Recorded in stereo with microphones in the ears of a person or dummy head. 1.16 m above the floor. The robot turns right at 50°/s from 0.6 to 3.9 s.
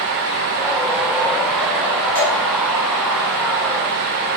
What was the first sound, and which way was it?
Dripping, 40° right (ahead or behind).